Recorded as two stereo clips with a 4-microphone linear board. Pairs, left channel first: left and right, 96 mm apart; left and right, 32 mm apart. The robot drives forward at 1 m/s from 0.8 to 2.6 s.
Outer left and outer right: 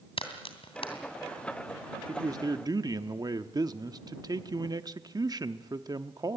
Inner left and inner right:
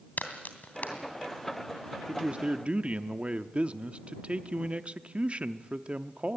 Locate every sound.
0.2 s a crack: 80° left, 2.5 m
2.1 s a man speaking: 35° right (ahead or behind), 0.8 m; by 6.4 s 45° right (ahead or behind), 0.7 m